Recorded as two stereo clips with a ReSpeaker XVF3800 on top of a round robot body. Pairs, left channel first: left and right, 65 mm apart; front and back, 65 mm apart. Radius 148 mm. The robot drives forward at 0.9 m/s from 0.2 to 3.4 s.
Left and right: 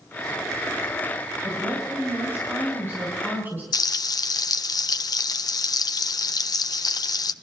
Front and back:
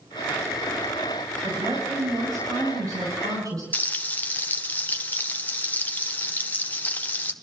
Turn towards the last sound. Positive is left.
turn(degrees=65)